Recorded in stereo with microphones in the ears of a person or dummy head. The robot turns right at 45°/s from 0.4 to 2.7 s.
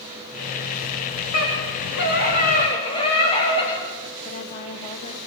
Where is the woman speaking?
30° left (ahead or behind), 1.8 m.